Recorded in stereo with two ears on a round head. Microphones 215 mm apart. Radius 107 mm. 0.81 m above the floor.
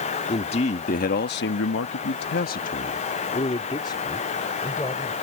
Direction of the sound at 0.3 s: 25° left (ahead or behind).